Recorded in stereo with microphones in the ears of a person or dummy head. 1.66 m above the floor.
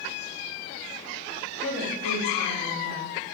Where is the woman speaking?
65° left (ahead or behind), 1.8 m.